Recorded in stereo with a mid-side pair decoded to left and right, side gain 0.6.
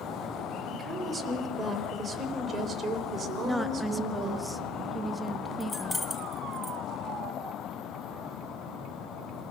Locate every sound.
0.7 s a woman speaking: 20° right, 4 m; by 4.4 s 50° right, 4 m
3.4 s a woman speaking: 5° right, 1.6 m
5.6 s keys jangling: 10° left, 1.5 m